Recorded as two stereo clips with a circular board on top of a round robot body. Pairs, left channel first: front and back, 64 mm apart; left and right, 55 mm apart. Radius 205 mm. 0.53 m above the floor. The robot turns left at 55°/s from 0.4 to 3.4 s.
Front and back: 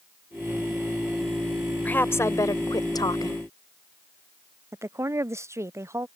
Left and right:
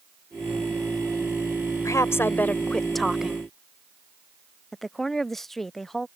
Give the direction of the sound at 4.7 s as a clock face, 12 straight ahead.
6 o'clock.